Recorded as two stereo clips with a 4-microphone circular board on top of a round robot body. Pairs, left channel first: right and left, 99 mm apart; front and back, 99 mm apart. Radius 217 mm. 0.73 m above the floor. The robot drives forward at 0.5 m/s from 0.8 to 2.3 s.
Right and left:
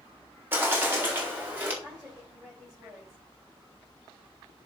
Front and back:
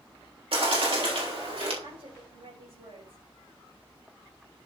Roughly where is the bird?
Behind left.